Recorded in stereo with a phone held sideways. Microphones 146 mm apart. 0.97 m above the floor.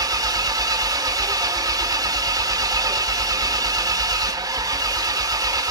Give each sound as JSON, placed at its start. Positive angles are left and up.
{"t": 0.0, "sound": "an engine running", "side_deg": -25, "distance_m": 0.9}